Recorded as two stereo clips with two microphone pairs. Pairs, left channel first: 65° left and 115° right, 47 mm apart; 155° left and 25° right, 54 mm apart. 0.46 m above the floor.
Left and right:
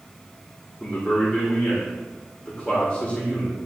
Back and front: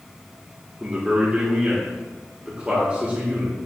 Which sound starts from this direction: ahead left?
A man speaking, at 0.8 s.